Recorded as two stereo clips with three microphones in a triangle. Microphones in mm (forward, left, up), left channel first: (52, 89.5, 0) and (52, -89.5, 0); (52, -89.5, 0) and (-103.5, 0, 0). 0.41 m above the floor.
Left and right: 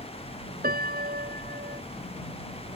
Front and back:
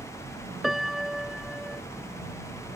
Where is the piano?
120° right.